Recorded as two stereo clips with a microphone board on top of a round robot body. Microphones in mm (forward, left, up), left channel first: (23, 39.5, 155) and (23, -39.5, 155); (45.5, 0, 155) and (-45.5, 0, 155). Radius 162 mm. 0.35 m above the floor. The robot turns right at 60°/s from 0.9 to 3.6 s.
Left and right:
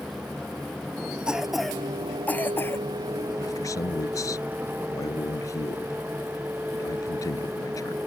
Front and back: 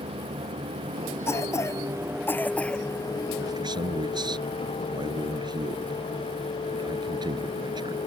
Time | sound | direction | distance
0.0 | a vehicle | straight behind | ?
1.3 | a cough | 20° right | ?
3.4 | a man speaking | 125° left | ?